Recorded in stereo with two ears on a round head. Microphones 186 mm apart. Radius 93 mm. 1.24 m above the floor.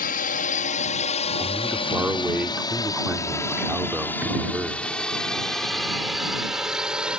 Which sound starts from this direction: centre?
A man speaking, at 1.4 s.